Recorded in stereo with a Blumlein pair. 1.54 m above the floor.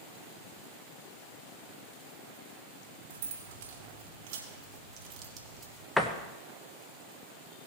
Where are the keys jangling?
55° right, 2.5 m; by 5.9 s 25° right, 1.5 m.